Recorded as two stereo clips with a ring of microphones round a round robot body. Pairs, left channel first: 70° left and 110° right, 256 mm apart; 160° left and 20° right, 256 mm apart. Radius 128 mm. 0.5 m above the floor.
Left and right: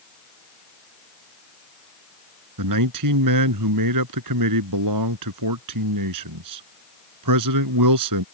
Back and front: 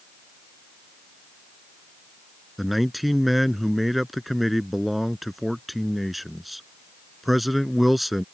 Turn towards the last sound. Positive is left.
turn(degrees=-110)